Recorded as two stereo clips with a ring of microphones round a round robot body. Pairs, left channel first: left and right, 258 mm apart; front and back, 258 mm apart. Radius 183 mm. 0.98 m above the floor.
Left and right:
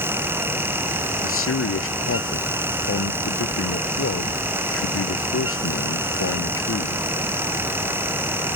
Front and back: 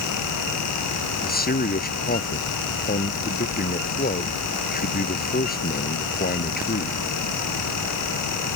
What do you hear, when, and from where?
1.2 s a man speaking: 55° left